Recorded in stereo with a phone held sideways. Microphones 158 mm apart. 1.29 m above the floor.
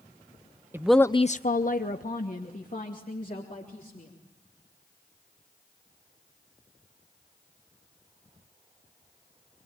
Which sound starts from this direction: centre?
A woman speaking, at 0.7 s.